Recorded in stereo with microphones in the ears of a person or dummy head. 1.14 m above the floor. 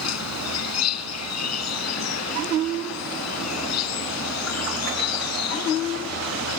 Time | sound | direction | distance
0.0 | an insect | 85° left | ?